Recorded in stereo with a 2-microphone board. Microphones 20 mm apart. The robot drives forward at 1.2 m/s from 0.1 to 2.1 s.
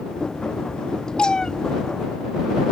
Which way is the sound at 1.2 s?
45° left (ahead or behind).